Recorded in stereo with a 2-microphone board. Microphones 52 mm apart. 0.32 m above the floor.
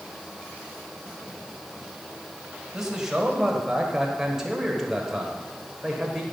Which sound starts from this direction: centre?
A man speaking, at 2.7 s.